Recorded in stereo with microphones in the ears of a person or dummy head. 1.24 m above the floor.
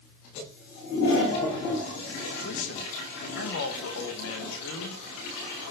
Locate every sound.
2.4 s a man speaking: 70° left (ahead or behind), 1.4 m